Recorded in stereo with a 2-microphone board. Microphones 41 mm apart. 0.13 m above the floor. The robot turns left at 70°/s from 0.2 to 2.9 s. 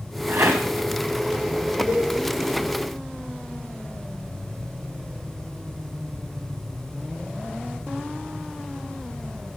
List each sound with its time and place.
0.3 s a rattle: 65° right (ahead or behind), 2.5 m; by 0.7 s 85° right, 2.5 m
1.9 s a cowbell: 60° right (ahead or behind), 3.5 m; by 2.1 s 75° right (ahead or behind), 3.5 m